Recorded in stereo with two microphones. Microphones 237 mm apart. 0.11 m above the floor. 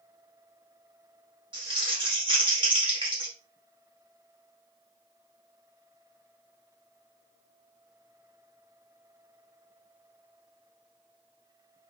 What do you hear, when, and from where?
1.5 s crumpling: 20° right (ahead or behind), 1.9 m